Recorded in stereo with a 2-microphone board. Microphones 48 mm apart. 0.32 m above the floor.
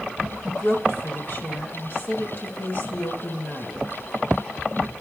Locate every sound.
0.4 s a woman speaking: 45° left (ahead or behind), 2 m